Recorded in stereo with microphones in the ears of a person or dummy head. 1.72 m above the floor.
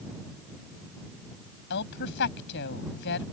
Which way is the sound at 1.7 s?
65° left (ahead or behind).